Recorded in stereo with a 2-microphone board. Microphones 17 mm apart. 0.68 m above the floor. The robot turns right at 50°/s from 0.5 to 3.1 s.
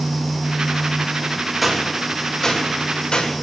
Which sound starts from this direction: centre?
A gunshot, at 1.6 s.